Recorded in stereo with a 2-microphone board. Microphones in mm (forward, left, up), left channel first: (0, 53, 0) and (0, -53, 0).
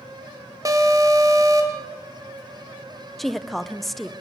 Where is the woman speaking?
Centre (ahead or behind), 0.9 m.